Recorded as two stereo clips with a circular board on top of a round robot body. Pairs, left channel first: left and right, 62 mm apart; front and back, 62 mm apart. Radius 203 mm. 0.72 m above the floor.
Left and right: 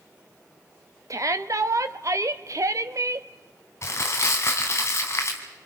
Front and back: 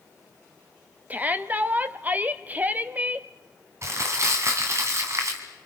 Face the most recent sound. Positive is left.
turn(degrees=135)